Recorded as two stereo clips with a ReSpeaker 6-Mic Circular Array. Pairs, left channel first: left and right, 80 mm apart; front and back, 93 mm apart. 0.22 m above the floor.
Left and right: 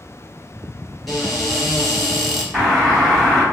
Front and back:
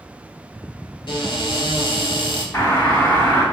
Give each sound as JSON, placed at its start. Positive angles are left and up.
{"t": 1.1, "sound": "a cupboard door", "azimuth_deg": 0, "distance_m": 1.1}
{"t": 2.5, "sound": "a doorbell", "azimuth_deg": 15, "distance_m": 1.9}